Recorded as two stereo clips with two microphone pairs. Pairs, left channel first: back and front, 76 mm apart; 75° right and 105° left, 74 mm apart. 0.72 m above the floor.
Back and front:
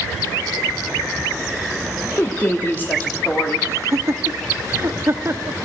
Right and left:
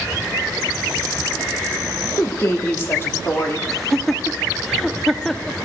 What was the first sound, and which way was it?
A woman speaking, 125° right.